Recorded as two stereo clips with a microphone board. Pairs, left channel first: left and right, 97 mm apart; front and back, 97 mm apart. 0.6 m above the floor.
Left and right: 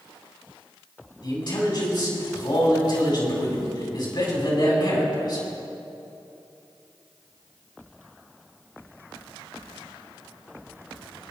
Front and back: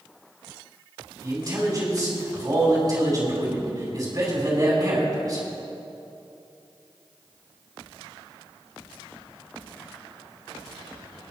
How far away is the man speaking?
About 4.5 m.